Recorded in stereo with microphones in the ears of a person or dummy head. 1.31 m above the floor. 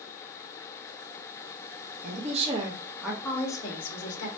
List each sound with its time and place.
2.0 s a woman speaking: 45° right (ahead or behind), 0.8 m; by 4.3 s 40° left (ahead or behind), 0.9 m